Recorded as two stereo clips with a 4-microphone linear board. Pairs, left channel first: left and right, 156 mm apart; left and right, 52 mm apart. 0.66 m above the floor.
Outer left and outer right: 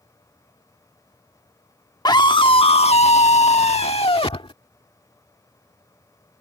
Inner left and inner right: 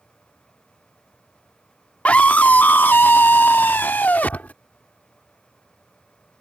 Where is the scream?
30° left (ahead or behind); by 4.5 s 40° left (ahead or behind).